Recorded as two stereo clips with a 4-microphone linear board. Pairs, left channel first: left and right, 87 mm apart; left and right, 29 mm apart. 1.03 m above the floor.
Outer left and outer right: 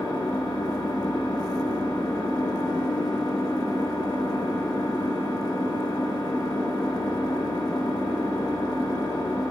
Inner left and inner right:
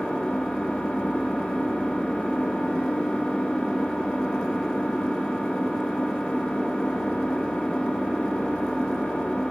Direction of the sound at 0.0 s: 85° left.